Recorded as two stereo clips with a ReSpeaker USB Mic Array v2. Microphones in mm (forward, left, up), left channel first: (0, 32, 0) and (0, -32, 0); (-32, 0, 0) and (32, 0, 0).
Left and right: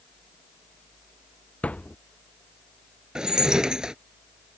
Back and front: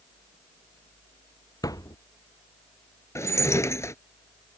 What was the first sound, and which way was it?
A thud, 160° left.